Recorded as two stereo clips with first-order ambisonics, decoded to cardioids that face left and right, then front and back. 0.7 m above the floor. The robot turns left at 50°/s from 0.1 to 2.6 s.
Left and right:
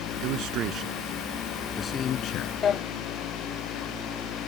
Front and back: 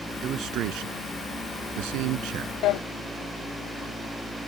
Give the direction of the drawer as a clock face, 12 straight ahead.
11 o'clock.